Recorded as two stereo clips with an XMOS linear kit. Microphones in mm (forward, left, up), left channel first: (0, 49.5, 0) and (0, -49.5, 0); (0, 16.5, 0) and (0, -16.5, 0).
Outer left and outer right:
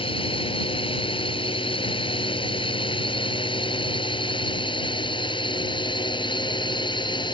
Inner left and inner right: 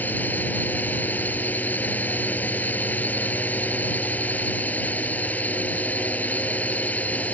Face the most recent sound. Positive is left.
turn(degrees=50)  # may be behind; listen again after turning